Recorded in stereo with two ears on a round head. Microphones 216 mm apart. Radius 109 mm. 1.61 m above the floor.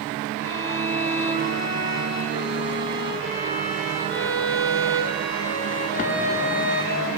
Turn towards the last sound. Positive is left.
turn(degrees=60)  # may be behind; listen again after turning